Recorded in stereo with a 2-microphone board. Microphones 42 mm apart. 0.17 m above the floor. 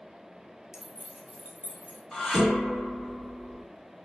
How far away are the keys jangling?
About 0.7 m.